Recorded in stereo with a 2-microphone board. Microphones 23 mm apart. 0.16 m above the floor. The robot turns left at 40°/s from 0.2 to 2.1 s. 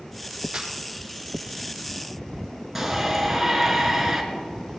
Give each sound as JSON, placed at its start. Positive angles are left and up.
{"t": 0.5, "sound": "a snare drum", "side_deg": -35, "distance_m": 4.5}
{"t": 2.8, "sound": "a shout", "side_deg": -10, "distance_m": 2.5}